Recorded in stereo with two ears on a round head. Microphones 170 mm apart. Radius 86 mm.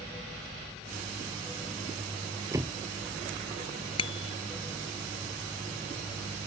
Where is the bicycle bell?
30° left (ahead or behind).